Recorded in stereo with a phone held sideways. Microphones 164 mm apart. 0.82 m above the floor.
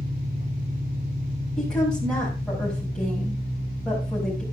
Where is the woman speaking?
5° left (ahead or behind), 5 m.